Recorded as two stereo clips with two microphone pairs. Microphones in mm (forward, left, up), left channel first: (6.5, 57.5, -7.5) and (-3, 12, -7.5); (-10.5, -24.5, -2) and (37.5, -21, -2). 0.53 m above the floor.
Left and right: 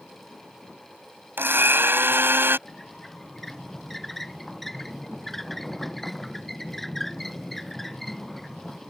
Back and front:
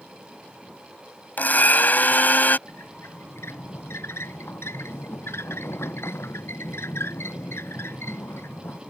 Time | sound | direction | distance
1.4 | a blender | 130° right | ?
2.7 | a squeak | 165° left | ?